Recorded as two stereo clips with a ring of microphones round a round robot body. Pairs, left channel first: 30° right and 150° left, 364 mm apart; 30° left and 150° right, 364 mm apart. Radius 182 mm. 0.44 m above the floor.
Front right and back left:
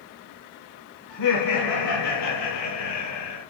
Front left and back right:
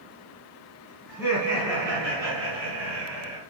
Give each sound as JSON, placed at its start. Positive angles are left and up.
{"t": 1.1, "sound": "laughter", "azimuth_deg": -70, "distance_m": 4.0}